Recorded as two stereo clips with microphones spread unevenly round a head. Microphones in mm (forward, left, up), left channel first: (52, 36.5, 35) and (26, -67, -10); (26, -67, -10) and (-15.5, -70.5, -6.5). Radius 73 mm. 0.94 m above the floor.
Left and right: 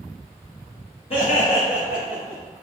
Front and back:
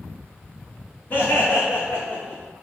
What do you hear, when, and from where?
1.1 s laughter: 40° left, 1.6 m; by 2.4 s 50° left, 2.5 m